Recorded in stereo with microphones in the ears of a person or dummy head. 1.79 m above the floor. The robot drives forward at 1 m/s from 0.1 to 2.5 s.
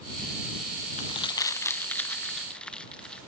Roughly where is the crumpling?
Left.